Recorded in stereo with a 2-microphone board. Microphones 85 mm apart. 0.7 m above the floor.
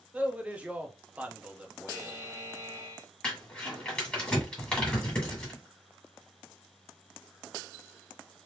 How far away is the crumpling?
About 2 m.